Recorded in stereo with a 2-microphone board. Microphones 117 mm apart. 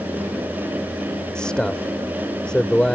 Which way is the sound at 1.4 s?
10° left (ahead or behind).